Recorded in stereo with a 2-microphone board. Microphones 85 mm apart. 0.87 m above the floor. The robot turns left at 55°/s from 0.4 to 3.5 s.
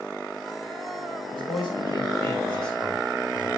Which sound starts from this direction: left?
A man speaking, at 1.3 s.